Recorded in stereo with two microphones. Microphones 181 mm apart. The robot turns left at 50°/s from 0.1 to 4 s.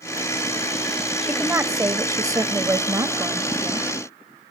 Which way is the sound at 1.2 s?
10° right (ahead or behind).